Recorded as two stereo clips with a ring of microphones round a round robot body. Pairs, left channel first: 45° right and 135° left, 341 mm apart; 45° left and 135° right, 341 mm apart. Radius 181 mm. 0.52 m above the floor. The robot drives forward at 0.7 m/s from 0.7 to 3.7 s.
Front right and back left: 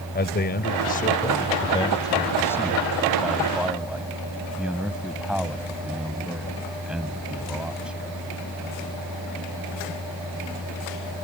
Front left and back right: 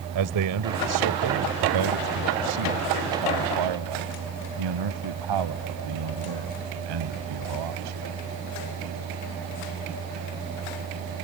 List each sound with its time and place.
0.1 s a man speaking: 105° right; by 8.2 s 140° right